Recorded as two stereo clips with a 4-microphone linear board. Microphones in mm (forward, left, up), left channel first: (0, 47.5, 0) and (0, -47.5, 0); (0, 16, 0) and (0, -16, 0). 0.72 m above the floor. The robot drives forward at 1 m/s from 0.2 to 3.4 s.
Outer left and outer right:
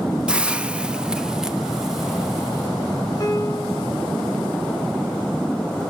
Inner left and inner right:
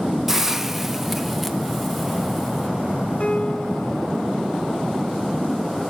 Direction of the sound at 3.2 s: 40° left (ahead or behind).